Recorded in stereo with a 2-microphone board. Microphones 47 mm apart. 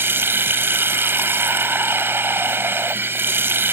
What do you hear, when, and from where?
0.0 s running water: 60° right (ahead or behind)